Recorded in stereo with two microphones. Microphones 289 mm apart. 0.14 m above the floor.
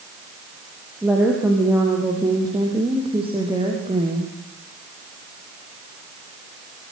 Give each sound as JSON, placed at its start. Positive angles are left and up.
{"t": 1.0, "sound": "a woman speaking", "side_deg": -5, "distance_m": 5.5}